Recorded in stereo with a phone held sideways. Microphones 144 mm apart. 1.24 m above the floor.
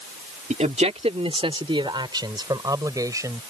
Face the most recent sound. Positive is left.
turn(degrees=-20)  # may be behind; listen again after turning